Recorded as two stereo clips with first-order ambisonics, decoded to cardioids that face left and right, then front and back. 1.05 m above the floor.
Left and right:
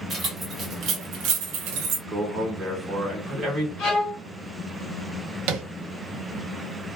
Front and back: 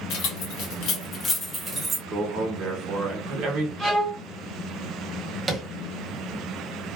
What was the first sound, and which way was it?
Keys jangling, 20° right.